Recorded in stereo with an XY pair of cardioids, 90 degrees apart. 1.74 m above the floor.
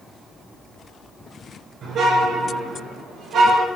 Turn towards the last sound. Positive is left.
turn(degrees=-80)